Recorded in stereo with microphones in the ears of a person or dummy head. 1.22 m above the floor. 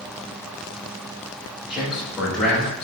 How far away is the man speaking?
About 5.5 m.